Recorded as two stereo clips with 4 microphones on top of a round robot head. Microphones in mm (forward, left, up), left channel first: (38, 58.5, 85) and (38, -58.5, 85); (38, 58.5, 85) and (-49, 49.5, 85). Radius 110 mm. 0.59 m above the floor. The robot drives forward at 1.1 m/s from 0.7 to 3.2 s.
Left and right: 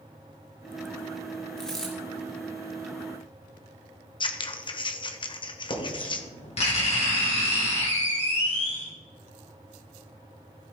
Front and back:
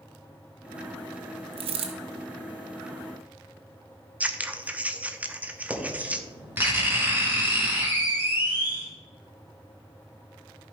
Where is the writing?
120° left, 3 m.